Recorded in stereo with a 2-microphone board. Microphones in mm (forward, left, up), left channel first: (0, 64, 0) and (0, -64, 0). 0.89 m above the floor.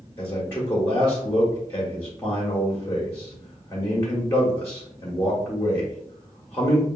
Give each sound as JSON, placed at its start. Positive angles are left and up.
{"t": 0.2, "sound": "a man speaking", "side_deg": 15, "distance_m": 1.2}